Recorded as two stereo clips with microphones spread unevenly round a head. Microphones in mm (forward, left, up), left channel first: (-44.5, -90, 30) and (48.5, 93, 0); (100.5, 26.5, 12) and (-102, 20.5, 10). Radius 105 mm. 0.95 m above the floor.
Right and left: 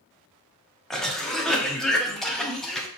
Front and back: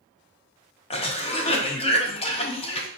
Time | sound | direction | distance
0.9 | a cough | 15° right | 0.6 m